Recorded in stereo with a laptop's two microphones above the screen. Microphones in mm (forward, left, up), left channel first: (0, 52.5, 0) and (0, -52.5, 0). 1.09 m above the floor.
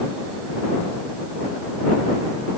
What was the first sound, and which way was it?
Only background noise.